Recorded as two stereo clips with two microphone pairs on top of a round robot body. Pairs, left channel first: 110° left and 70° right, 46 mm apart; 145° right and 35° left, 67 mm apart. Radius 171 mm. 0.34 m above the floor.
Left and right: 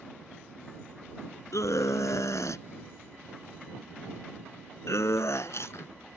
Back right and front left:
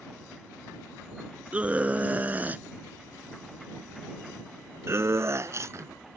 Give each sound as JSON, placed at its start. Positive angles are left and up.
{"t": 1.5, "sound": "a scream", "azimuth_deg": 105}